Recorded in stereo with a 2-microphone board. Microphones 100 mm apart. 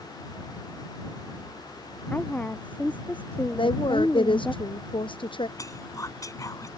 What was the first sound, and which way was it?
A woman speaking, 15° left (ahead or behind).